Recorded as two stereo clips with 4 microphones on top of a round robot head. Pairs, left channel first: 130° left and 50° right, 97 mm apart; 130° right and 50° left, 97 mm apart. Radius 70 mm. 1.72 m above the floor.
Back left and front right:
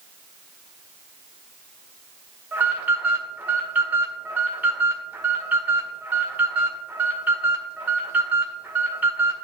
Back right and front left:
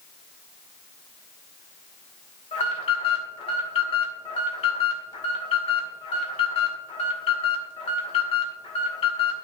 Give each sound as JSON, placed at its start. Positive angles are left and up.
{"t": 2.5, "sound": "an alarm", "azimuth_deg": -125, "distance_m": 2.0}